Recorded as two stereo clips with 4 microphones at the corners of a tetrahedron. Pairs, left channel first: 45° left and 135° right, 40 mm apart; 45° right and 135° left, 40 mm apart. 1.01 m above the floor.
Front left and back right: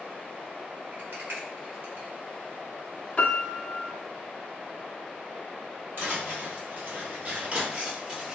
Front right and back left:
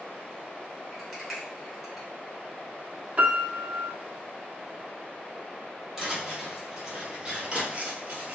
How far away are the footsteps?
About 1.9 m.